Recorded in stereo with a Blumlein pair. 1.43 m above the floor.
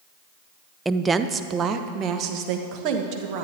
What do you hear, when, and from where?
0.8 s a woman speaking: 5° right, 0.5 m; by 3.4 s 40° right, 1.9 m